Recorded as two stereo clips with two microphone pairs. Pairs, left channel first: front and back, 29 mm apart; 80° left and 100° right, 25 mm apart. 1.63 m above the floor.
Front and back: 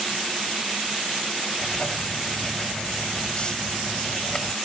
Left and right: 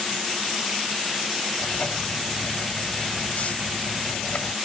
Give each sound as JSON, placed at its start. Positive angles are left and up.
{"t": 1.6, "sound": "writing", "azimuth_deg": 60}